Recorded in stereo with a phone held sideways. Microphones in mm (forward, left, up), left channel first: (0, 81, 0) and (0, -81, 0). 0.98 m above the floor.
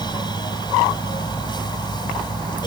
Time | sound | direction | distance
0.0 | a fan | 25° left (ahead or behind) | ?